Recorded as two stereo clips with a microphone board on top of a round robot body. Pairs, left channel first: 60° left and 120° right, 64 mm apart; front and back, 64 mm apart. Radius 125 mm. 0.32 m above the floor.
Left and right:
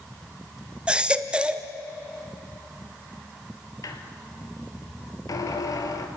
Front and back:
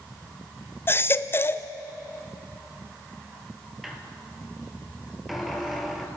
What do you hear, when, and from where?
0.9 s a baby crying: 50° right, 1.1 m
3.8 s a squeak: 95° left, 1.9 m